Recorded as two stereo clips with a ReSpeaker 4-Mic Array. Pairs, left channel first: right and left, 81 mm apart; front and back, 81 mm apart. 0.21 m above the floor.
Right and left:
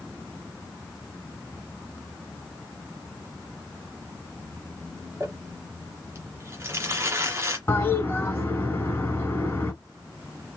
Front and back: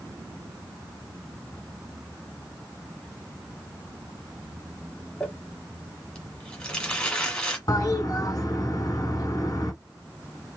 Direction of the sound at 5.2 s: 65° left.